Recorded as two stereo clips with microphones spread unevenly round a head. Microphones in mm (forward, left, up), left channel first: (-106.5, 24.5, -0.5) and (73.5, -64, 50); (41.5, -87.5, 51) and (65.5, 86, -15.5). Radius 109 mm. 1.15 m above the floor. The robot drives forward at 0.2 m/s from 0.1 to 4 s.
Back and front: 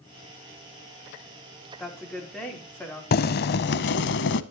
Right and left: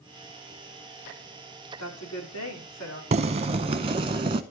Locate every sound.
1.8 s a woman speaking: 120° right, 3.5 m; by 3.0 s 125° right, 3.5 m
3.1 s boiling: 125° left, 0.6 m; by 4.4 s 135° left, 0.7 m